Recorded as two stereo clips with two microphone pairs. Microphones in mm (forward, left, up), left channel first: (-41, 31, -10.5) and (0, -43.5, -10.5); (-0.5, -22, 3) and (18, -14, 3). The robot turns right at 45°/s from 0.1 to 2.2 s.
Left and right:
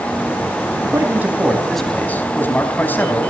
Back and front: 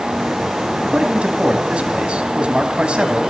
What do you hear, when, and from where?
0.8 s a man speaking: 10° right, 4 m; by 3.2 s 50° left, 4 m